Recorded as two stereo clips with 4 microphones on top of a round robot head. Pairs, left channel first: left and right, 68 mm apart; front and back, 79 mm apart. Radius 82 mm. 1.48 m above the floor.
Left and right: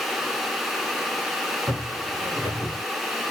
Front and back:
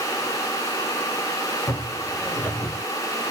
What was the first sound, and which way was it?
Footsteps, 75° right.